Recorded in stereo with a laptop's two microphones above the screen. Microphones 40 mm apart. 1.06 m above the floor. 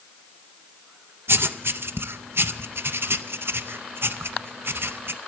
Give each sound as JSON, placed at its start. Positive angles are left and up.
{"t": 1.3, "sound": "writing", "side_deg": -75, "distance_m": 0.6}